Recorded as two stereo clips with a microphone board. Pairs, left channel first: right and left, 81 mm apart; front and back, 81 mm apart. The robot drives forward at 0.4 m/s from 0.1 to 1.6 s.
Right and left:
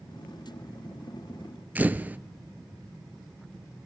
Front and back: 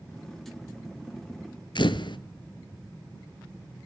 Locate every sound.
1.8 s a camera shutter: 20° left, 0.6 m